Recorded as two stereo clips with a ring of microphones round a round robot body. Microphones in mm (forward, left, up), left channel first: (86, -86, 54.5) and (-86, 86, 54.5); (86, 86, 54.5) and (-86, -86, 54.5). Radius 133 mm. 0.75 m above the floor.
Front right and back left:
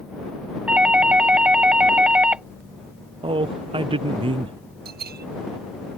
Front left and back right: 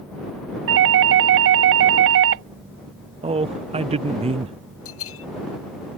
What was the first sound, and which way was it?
A doorbell, 140° right.